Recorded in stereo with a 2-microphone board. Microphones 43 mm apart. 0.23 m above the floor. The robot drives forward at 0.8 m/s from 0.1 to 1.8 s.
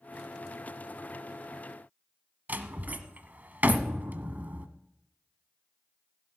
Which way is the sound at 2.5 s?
40° right (ahead or behind).